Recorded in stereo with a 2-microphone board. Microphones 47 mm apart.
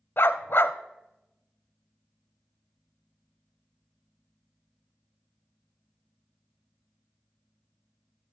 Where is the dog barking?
55° left (ahead or behind), 0.5 m.